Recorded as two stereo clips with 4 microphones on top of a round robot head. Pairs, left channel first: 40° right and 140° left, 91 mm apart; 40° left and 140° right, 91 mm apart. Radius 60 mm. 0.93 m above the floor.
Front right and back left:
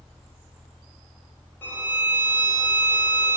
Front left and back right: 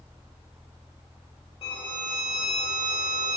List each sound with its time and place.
1.6 s a violin: 25° left, 0.8 m